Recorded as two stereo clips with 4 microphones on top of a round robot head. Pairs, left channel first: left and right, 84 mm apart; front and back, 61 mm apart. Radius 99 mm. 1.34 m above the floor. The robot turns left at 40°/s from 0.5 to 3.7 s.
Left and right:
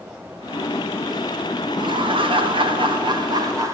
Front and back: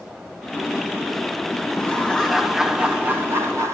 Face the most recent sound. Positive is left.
turn(degrees=-140)